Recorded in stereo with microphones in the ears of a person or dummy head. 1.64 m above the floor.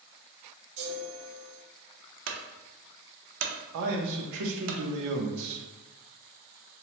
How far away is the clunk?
About 0.6 m.